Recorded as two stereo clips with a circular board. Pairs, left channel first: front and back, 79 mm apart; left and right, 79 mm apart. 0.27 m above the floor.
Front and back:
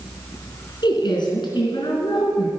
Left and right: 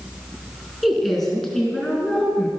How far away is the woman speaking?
About 3 m.